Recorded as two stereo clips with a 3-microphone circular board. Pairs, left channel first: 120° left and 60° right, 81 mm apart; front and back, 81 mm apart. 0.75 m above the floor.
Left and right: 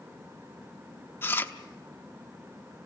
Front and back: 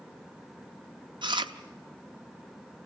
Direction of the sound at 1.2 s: Straight behind.